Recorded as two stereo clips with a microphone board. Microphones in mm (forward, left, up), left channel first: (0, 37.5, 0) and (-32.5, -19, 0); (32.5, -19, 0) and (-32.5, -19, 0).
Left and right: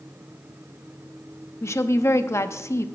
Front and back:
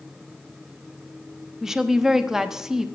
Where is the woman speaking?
100° left, 0.8 m.